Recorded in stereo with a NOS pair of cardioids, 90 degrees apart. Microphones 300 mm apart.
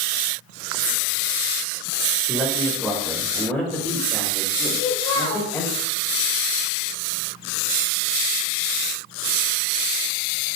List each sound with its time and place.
2.3 s a man speaking: straight ahead, 4 m; by 5.7 s 10° left, 6 m
4.7 s a child speaking: 45° left, 3 m